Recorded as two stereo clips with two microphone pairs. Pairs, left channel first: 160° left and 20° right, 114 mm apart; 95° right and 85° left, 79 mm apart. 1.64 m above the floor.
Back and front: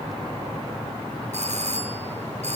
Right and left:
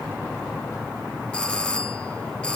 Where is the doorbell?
15° right, 3.5 m.